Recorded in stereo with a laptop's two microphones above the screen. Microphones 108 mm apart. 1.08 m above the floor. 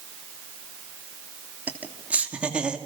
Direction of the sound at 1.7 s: 15° right (ahead or behind).